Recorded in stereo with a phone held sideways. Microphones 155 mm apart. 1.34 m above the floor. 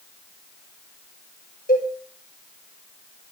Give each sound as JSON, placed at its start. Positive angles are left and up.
{"t": 1.7, "sound": "a cowbell", "side_deg": 80, "distance_m": 7.0}